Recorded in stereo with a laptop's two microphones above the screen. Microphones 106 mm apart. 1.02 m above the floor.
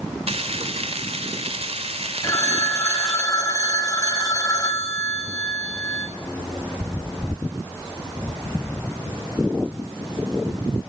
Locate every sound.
0.3 s frying: 75° right (ahead or behind), 2.5 m
2.2 s a phone ringing: 30° left (ahead or behind), 3.5 m